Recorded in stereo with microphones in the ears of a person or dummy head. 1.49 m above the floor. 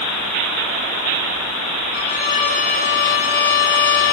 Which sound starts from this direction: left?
A violin, at 1.9 s.